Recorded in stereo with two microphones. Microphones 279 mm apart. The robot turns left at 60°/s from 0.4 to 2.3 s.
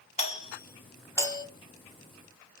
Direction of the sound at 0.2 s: 20° left (ahead or behind).